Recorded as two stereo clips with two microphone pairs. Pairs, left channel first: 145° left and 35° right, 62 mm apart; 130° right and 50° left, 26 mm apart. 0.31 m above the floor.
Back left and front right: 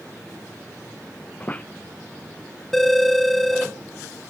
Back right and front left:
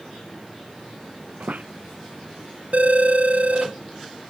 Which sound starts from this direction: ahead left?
A phone ringing, at 2.7 s.